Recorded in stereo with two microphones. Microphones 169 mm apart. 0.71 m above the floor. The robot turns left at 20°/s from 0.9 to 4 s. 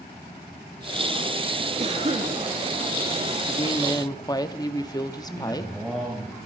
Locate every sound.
1.8 s a cough: 40° right (ahead or behind), 1.4 m; by 2.4 s 35° right (ahead or behind), 1.4 m
3.5 s a woman speaking: 30° left (ahead or behind), 0.9 m; by 5.7 s 25° left (ahead or behind), 0.9 m
5.3 s a man speaking: centre (ahead or behind), 4 m